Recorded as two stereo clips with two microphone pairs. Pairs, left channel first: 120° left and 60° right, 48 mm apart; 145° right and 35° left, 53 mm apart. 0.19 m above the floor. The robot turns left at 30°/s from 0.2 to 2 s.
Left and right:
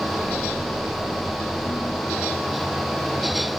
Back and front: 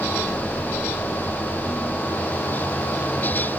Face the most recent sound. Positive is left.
No sound to turn to.